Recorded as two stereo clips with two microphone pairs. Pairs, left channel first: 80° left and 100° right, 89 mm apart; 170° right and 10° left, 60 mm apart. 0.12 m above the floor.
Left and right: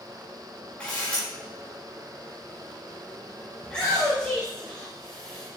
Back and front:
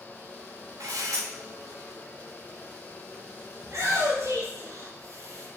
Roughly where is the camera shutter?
Ahead.